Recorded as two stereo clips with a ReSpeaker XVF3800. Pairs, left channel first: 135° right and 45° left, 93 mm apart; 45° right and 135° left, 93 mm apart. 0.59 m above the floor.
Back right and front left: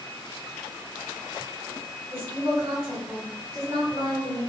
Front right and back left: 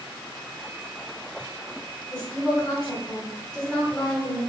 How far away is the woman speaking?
About 1.4 m.